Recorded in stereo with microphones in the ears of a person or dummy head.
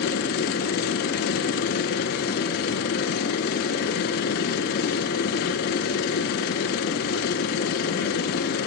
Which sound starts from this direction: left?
A machine running, at 0.0 s.